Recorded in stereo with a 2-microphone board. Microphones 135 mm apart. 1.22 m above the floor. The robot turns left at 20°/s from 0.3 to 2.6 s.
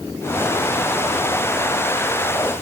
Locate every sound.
Only background noise.